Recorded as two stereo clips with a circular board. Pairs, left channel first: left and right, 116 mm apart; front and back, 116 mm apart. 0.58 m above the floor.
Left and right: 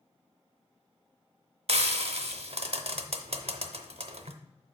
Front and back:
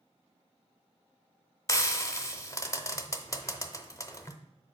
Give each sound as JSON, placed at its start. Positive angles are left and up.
{"t": 1.7, "sound": "frying", "azimuth_deg": -65, "distance_m": 0.5}